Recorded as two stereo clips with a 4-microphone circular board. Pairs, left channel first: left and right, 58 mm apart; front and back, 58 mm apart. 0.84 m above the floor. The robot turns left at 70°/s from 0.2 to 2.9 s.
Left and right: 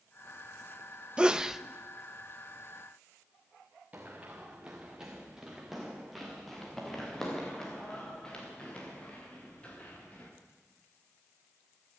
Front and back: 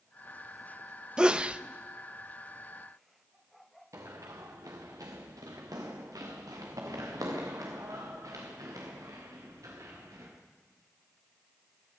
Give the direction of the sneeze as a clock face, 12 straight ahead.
4 o'clock.